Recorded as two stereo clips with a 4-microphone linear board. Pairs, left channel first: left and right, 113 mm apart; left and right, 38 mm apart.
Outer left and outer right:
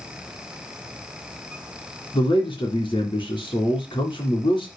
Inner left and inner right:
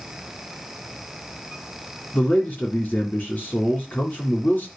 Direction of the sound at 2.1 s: 40° left (ahead or behind).